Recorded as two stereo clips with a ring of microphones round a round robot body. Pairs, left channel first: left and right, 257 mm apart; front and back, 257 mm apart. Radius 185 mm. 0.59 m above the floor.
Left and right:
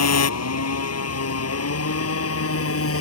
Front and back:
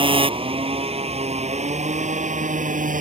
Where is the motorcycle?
110° left; by 3.0 s 120° left.